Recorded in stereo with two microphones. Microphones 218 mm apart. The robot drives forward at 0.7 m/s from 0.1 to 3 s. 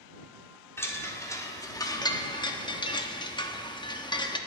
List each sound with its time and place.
0.8 s a chime: 10° left (ahead or behind), 1.7 m; by 4.4 s 20° left (ahead or behind), 1.0 m